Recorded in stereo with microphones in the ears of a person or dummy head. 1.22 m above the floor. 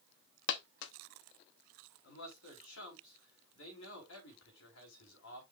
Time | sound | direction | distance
0.5 | a dropped coin | 55° left (ahead or behind) | 0.9 m
2.0 | a man speaking | 80° left | 4.5 m